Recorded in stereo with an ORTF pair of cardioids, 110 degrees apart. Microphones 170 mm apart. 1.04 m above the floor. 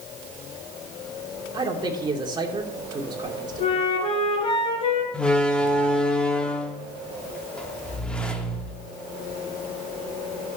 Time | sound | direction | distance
1.5 | a man speaking | 25° right | 2.5 m
3.6 | a flute | 35° left | 4.5 m
5.1 | a door slam | 5° left | 1.6 m